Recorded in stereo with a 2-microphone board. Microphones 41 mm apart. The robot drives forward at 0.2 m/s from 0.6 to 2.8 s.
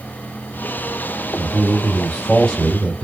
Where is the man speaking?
15° left (ahead or behind), 1.7 m.